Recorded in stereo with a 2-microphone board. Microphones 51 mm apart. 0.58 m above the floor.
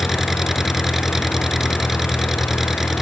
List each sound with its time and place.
0.0 s an engine running: 5° right (ahead or behind)